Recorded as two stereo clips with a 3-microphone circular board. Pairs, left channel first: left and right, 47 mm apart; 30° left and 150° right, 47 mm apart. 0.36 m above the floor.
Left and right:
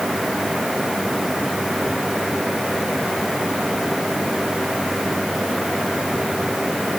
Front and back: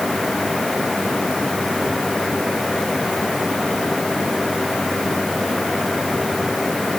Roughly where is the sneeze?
I don't hear a sneeze.